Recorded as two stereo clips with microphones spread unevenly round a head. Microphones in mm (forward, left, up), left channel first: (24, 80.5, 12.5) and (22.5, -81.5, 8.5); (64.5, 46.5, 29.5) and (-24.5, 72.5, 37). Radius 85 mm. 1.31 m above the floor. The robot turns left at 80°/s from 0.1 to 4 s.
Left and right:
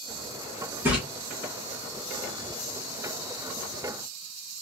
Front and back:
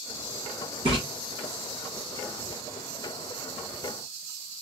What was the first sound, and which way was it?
A splash, 165° right.